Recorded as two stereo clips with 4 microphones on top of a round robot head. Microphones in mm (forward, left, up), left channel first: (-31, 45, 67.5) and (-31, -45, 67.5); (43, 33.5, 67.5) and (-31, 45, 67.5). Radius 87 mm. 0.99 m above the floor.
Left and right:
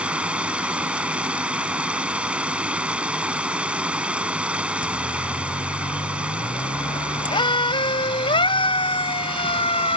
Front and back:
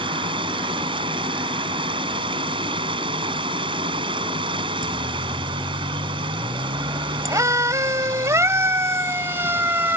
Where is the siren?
135° left; by 10.0 s 110° left.